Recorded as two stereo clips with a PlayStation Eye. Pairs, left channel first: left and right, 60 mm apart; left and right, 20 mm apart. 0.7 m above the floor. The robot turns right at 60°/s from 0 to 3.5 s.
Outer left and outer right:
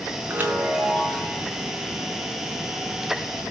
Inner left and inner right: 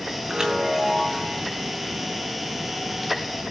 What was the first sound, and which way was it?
A chime, 35° right.